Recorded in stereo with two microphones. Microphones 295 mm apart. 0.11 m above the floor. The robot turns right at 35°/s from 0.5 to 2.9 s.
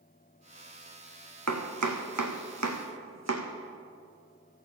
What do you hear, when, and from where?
1.5 s chopping: 65° right (ahead or behind), 1.3 m; by 3.5 s 60° right (ahead or behind), 1.3 m